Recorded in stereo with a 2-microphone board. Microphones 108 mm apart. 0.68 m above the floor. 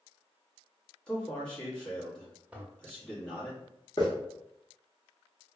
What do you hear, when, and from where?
1.1 s a man speaking: 10° left (ahead or behind), 1.0 m
2.5 s a toilet flushing: 15° right (ahead or behind), 0.5 m
4.0 s a hiss: 45° left (ahead or behind), 0.9 m